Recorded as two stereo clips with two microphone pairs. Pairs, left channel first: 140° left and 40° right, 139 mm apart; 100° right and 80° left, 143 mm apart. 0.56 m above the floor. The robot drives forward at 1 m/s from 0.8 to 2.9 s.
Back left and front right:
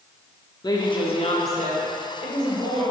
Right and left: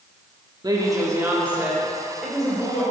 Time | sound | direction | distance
0.6 | a woman speaking | 115° left | 0.8 m